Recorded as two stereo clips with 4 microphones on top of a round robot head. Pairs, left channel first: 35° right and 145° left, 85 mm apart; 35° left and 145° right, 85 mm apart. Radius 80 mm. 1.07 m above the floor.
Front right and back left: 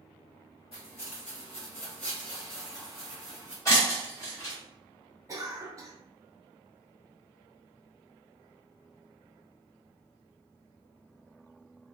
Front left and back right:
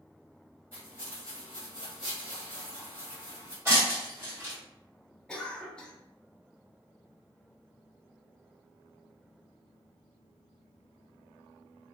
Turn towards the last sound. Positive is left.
turn(degrees=110)